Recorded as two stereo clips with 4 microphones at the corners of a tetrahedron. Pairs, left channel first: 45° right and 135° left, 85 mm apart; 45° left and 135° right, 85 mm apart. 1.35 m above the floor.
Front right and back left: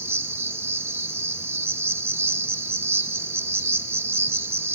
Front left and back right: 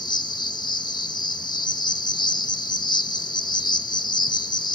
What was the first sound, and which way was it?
An insect, 75° left.